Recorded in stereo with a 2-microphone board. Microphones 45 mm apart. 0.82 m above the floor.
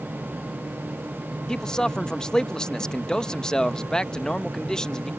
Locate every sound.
1.5 s a man speaking: 15° left (ahead or behind)